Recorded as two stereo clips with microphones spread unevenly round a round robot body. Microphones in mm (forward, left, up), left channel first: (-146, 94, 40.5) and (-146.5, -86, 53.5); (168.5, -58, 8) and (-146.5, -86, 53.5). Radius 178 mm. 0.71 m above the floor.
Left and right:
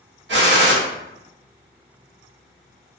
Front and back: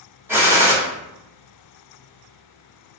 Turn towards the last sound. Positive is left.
turn(degrees=-90)